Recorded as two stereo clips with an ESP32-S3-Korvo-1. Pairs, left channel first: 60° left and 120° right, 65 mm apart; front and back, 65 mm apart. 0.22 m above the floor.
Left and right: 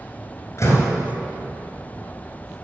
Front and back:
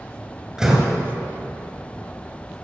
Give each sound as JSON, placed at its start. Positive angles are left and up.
{"t": 0.6, "sound": "a door slam", "azimuth_deg": 100, "distance_m": 3.0}